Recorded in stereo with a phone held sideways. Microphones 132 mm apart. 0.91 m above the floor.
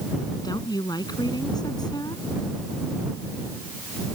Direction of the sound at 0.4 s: 35° left (ahead or behind).